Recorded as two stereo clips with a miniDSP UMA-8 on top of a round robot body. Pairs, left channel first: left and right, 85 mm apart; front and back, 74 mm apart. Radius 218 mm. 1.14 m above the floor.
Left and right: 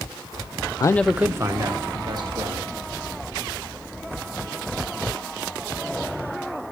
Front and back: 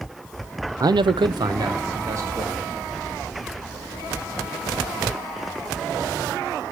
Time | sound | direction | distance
0.8 | a man speaking | 135° left | 0.5 m